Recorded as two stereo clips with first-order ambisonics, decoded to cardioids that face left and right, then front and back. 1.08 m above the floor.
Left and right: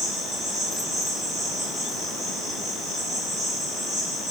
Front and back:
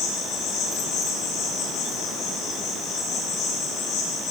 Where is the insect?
30° right, 3.5 m.